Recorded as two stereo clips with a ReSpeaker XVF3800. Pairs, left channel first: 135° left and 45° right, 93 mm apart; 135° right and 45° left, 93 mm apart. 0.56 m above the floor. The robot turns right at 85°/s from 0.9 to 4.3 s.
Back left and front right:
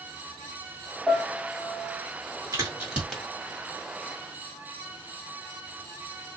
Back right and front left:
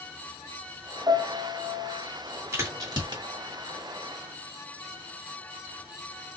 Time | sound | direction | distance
1.1 | a piano | 55° left | 1.5 m
2.5 | a crack | 5° right | 1.9 m